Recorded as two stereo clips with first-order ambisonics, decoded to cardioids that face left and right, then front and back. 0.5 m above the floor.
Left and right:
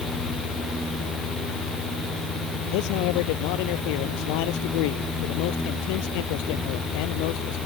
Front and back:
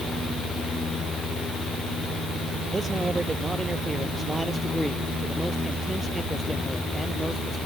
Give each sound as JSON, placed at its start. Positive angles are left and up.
{"t": 2.7, "sound": "a man speaking", "azimuth_deg": 100}